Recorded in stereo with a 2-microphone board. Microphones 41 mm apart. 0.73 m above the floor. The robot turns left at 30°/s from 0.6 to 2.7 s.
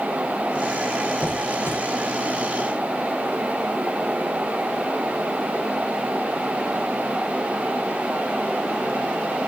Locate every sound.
1.2 s a squeak: 75° left (ahead or behind), 0.5 m